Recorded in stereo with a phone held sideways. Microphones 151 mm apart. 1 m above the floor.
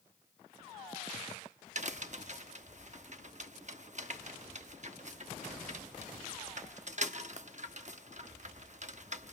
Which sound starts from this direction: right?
A crack, at 1.8 s.